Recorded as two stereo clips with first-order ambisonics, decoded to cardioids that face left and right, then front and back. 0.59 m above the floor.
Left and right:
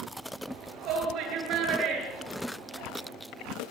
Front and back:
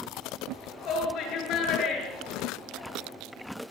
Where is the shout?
50° right, 9 m; by 3.1 s 45° right, 8.5 m.